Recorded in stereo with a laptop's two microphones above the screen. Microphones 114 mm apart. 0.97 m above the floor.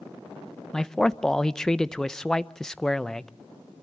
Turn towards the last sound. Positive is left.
turn(degrees=5)  # may be behind; listen again after turning